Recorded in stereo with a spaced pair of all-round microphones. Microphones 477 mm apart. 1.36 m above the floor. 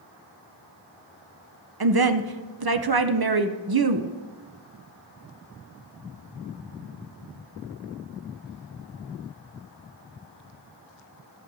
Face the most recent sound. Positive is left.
turn(degrees=-50)  # may be behind; listen again after turning